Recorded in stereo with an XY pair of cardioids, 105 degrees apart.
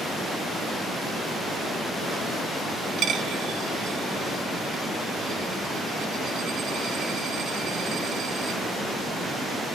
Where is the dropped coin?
70° right, 2 m.